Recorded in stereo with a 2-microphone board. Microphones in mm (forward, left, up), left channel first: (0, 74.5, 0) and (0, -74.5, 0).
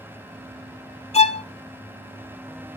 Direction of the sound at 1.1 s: 45° left (ahead or behind).